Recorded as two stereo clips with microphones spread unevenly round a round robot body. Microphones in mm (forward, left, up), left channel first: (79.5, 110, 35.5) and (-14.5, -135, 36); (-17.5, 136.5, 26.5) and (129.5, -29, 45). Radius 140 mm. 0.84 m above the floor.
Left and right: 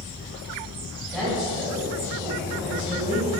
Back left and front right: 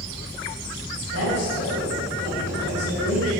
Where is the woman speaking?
160° left, 3.5 m.